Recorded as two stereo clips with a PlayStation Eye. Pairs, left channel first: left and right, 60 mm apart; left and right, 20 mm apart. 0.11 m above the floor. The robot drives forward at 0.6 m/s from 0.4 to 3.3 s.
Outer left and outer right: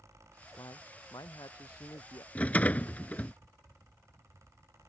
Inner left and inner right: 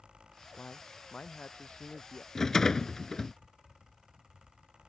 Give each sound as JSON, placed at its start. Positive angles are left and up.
{"t": 0.6, "sound": "a man speaking", "side_deg": 70}
{"t": 2.4, "sound": "a rattle", "side_deg": 25}